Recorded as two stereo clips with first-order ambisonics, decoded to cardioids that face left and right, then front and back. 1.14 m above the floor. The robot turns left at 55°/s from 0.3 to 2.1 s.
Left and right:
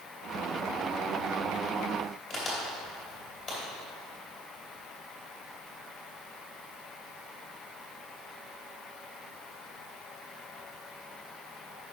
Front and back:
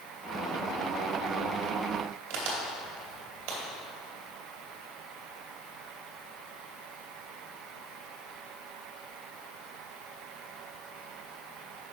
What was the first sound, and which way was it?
A crack, 160° left.